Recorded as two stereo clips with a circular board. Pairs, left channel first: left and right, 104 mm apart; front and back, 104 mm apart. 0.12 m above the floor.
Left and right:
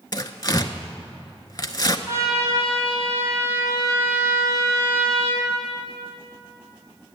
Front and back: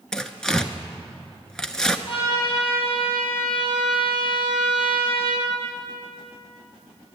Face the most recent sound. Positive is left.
turn(degrees=-30)